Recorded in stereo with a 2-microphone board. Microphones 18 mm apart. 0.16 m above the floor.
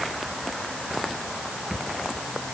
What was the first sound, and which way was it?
Only background noise.